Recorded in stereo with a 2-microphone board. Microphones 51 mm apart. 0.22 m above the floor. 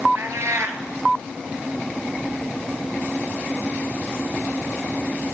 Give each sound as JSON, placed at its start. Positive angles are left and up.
{"t": 0.1, "sound": "a cat meowing", "side_deg": -65, "distance_m": 1.4}